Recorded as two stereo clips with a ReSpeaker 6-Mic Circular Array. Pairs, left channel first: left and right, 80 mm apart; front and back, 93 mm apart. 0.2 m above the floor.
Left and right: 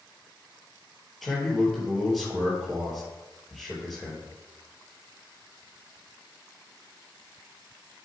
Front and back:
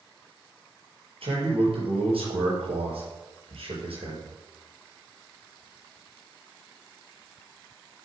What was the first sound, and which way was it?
A man speaking, straight behind.